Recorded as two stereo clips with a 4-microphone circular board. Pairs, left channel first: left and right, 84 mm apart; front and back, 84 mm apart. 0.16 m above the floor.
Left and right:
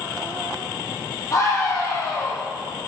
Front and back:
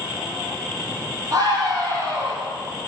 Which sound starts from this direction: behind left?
A scream, at 1.3 s.